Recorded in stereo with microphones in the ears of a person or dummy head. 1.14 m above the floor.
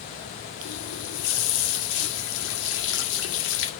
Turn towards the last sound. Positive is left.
turn(degrees=80)